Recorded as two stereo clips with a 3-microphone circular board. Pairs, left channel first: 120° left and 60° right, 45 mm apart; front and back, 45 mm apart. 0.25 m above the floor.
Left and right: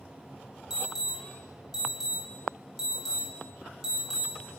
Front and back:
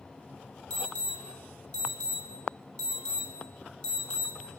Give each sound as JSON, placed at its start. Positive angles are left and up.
{"t": 0.7, "sound": "an alarm", "azimuth_deg": -5, "distance_m": 2.5}